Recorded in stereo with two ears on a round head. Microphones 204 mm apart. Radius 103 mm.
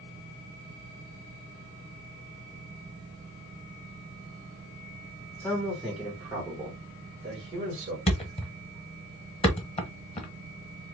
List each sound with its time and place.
5.4 s a man speaking: 10° left (ahead or behind), 1.5 m; by 8.0 s 30° right (ahead or behind), 2 m
8.1 s a thud: 30° left (ahead or behind), 1.1 m